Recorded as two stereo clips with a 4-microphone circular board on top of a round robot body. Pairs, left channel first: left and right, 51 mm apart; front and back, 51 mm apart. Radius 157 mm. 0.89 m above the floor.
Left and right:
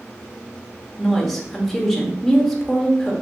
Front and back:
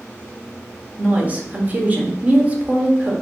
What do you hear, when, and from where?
1.0 s a woman speaking: 175° left, 0.8 m